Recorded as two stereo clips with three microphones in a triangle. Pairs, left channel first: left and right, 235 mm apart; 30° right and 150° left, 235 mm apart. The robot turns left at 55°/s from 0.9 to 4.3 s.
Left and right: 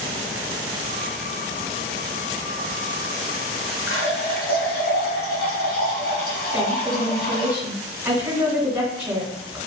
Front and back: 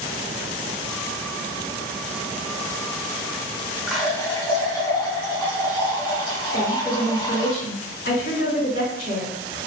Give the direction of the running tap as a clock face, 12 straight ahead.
10 o'clock.